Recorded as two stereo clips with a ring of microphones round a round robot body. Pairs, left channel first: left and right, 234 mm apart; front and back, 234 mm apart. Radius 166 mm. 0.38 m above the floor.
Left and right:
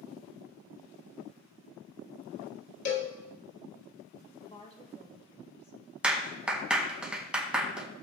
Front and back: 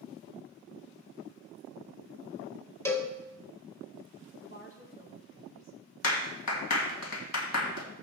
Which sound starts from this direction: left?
A cowbell, at 2.9 s.